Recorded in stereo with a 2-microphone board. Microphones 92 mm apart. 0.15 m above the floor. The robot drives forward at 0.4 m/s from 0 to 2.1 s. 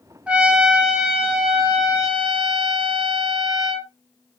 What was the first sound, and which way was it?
A trumpet, 15° right (ahead or behind).